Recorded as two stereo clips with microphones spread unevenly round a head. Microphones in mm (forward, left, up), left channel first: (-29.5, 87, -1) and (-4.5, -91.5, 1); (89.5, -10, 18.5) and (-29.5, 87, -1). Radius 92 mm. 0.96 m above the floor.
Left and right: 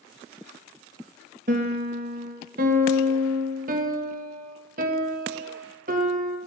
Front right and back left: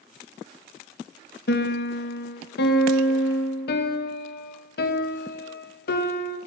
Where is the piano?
40° right, 1.1 m.